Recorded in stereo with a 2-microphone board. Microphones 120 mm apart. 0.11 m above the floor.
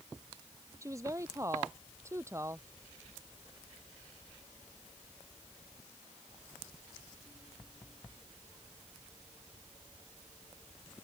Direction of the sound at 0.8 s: 25° right (ahead or behind).